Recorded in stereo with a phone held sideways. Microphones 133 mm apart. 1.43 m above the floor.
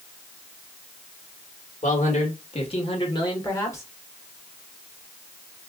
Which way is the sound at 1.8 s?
65° left (ahead or behind).